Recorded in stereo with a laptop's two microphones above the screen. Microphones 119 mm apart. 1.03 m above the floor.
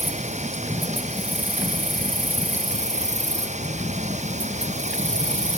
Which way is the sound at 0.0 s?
80° right.